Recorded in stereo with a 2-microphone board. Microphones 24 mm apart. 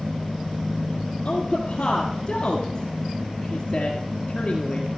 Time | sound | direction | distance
1.2 | a woman speaking | 30° left (ahead or behind) | 1.6 m